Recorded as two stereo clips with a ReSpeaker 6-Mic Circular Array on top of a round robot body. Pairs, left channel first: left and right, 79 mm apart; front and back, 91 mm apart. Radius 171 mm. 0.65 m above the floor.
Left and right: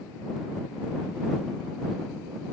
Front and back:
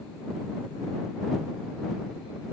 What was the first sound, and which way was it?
Only background noise.